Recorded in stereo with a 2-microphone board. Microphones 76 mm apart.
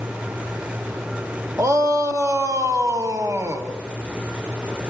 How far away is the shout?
About 2 m.